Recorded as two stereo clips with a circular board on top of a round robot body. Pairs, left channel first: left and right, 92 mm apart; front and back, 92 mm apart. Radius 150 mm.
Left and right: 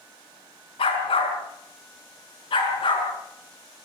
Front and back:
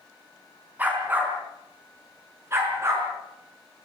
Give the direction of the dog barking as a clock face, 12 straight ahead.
8 o'clock.